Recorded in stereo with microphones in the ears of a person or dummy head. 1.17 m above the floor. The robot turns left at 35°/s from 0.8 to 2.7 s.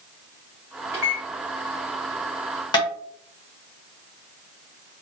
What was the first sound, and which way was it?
A microwave, 30° left (ahead or behind).